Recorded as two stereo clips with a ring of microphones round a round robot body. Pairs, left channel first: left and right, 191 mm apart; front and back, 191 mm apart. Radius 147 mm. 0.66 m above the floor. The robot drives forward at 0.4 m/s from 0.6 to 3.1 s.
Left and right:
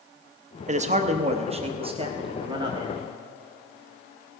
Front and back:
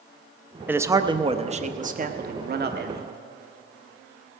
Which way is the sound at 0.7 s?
105° right.